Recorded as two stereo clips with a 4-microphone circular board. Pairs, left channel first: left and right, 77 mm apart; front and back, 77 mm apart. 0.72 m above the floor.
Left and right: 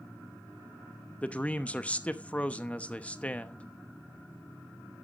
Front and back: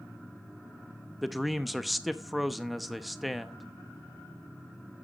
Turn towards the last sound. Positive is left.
turn(degrees=95)